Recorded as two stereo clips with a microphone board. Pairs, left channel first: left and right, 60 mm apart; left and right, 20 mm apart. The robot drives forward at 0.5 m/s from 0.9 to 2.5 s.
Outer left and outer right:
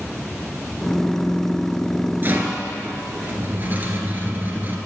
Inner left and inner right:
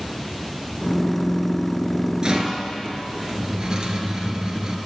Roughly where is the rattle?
Right.